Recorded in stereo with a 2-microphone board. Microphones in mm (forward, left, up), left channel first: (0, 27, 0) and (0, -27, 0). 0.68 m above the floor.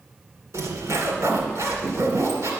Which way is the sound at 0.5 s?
65° right (ahead or behind).